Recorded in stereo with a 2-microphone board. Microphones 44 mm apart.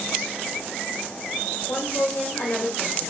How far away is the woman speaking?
About 1.2 m.